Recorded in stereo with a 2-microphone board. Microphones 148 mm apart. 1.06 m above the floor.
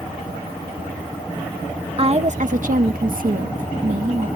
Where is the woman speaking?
40° right (ahead or behind); by 4.3 s 55° right (ahead or behind).